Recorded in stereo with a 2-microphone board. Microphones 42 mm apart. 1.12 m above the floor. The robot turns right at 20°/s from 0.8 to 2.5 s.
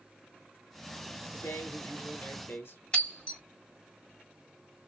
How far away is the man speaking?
About 1.0 m.